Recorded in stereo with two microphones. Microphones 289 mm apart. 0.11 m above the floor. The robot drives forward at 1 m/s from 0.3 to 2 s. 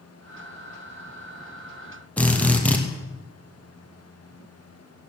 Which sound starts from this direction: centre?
A drill, at 2.2 s.